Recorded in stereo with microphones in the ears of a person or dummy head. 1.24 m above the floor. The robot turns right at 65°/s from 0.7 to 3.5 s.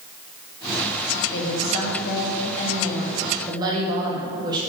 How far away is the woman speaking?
About 1.7 m.